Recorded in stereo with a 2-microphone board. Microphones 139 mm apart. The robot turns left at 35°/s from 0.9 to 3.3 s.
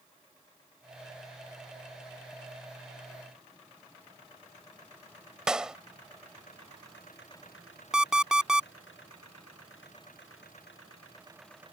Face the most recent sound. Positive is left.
turn(degrees=-5)  # may be behind; listen again after turning